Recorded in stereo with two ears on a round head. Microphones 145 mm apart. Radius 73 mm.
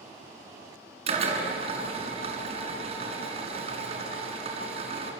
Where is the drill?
40° right (ahead or behind), 5.5 m.